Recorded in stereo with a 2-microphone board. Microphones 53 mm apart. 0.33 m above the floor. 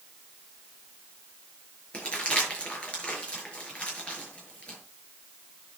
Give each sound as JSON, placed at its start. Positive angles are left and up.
{"t": 1.9, "sound": "crumpling", "side_deg": 25, "distance_m": 7.0}